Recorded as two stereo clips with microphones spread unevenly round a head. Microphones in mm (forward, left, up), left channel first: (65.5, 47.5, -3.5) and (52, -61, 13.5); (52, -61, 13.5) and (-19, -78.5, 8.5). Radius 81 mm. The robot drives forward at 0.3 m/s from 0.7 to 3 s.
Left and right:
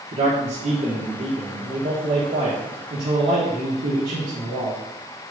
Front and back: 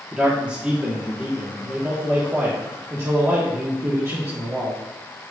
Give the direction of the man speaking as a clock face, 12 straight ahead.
3 o'clock.